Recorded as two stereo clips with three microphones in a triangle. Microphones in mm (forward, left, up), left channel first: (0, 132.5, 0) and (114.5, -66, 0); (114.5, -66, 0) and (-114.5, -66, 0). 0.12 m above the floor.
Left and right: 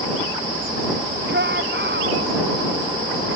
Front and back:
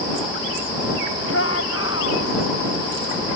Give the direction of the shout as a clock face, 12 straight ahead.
1 o'clock.